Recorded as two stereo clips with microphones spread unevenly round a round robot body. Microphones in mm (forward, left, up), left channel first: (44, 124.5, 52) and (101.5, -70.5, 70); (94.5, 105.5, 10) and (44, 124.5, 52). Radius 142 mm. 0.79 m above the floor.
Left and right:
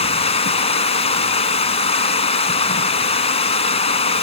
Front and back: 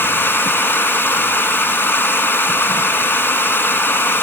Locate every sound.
0.0 s running water: 45° left, 1.6 m